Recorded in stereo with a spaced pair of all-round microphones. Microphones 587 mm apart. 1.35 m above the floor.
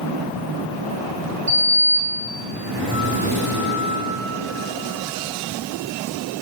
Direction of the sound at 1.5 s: 65° right (ahead or behind).